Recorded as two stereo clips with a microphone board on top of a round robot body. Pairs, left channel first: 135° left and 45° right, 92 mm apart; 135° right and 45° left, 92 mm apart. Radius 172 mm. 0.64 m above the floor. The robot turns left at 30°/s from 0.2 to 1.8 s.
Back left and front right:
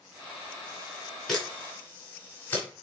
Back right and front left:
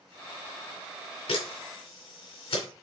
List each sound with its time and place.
1.3 s a camera shutter: 140° right, 3 m; by 2.7 s 155° right, 3 m